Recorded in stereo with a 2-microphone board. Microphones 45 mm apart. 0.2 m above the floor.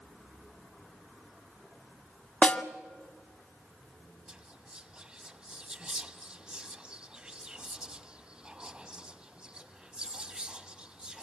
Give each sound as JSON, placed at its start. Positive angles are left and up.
{"t": 2.4, "sound": "a snare drum", "side_deg": 35, "distance_m": 1.3}
{"t": 4.3, "sound": "whispering", "side_deg": -25, "distance_m": 1.0}